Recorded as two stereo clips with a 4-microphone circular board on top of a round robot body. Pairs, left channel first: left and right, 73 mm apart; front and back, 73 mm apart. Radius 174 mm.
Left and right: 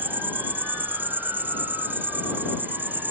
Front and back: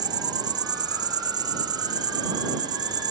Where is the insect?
155° right.